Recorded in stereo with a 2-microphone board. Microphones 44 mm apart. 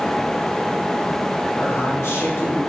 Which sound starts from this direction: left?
A man speaking, at 1.6 s.